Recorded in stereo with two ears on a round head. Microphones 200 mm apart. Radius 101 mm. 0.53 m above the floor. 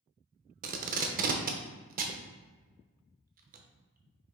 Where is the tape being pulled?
40° right (ahead or behind), 0.5 m.